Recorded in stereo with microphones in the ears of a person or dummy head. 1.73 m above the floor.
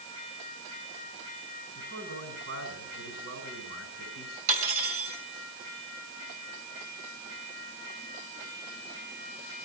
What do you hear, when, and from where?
1.8 s a man speaking: 65° right (ahead or behind), 7 m
4.5 s cutlery clinking: 50° right (ahead or behind), 6.5 m